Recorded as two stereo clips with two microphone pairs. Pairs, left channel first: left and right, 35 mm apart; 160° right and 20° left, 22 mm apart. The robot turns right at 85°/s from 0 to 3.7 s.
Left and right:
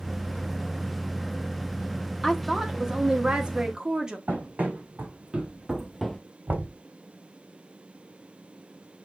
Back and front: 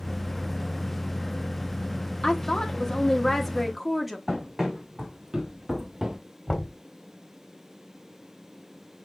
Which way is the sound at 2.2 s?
Straight behind.